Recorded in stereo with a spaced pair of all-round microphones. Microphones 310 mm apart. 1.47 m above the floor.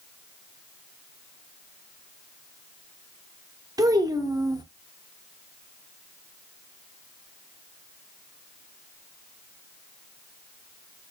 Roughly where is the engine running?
No engine running in this recording.